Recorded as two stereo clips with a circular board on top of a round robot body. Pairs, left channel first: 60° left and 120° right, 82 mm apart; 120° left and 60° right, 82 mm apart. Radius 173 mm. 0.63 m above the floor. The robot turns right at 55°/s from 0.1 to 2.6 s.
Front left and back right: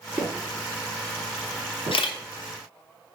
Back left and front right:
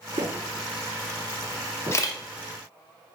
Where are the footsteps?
50° right, 0.7 m; by 2.0 s 115° right, 1.4 m.